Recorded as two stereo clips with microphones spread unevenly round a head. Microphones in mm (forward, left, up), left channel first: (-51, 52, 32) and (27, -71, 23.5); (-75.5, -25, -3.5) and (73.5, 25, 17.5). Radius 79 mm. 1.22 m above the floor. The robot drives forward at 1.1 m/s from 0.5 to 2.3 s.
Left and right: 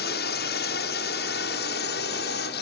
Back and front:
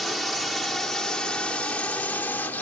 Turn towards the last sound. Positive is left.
turn(degrees=120)